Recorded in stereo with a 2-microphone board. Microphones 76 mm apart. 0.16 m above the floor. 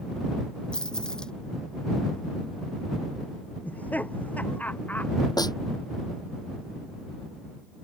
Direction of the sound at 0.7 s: 10° left (ahead or behind).